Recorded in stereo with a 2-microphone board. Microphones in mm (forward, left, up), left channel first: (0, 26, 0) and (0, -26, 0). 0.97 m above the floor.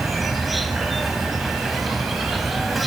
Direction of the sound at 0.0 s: Centre (ahead or behind).